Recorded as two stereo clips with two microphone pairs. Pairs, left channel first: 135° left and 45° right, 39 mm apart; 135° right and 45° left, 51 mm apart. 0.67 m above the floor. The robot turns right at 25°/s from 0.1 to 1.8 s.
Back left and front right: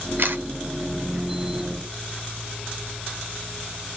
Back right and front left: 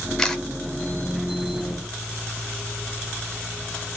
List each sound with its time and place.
0.2 s a camera shutter: 55° right, 0.9 m; by 0.4 s 50° right, 0.9 m